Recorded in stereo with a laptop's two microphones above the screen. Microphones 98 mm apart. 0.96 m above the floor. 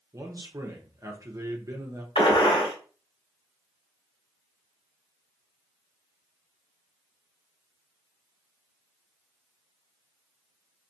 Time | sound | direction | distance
0.1 | a man speaking | 35° right (ahead or behind) | 0.9 m
2.1 | a gunshot | 70° left (ahead or behind) | 1.7 m